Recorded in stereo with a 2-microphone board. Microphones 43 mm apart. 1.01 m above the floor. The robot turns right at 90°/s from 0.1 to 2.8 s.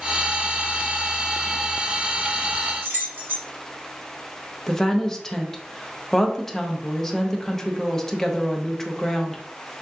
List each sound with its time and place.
2.8 s keys jangling: 65° right (ahead or behind), 1.2 m
4.7 s a woman speaking: 10° left (ahead or behind), 0.6 m